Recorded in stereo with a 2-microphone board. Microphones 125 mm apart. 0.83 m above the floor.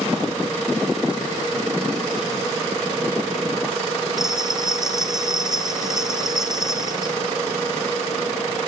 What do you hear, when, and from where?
4.2 s a bell: 5° right (ahead or behind), 2.5 m